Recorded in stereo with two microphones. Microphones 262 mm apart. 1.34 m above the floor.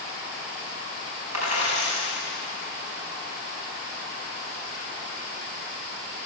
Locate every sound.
1.3 s a dropped coin: 85° right, 5 m